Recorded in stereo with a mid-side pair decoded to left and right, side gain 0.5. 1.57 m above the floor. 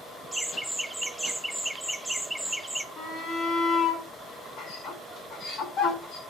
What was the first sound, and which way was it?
Laughter, straight ahead.